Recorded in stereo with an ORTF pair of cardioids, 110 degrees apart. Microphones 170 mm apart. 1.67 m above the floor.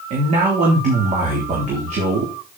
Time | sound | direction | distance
0.1 | a man speaking | 50° right | 3 m